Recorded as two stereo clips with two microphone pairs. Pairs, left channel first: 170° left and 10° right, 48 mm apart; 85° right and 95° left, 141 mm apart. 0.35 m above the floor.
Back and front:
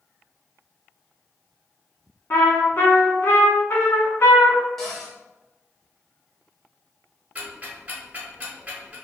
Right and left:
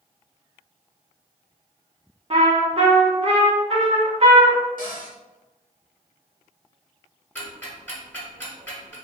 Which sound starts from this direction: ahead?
Ticking, at 7.3 s.